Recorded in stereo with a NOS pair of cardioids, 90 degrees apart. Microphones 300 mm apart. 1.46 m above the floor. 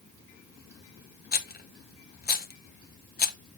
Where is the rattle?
30° left, 1.1 m.